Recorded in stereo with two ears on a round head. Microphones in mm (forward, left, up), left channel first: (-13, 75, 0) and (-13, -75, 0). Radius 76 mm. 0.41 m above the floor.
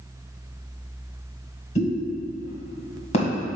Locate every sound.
1.8 s a pop: 40° left (ahead or behind), 2 m